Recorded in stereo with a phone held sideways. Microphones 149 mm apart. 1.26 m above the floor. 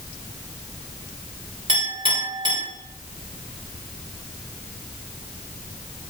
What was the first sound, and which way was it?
A clink, 35° right (ahead or behind).